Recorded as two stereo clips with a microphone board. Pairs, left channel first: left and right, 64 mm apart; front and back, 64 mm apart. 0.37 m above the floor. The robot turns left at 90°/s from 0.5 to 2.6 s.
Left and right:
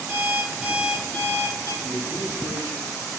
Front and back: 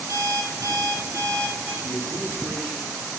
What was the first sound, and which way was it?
An alarm clock, 140° right.